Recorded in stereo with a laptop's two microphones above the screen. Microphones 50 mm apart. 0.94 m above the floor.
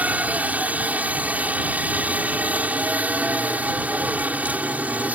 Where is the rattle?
I don't hear a rattle.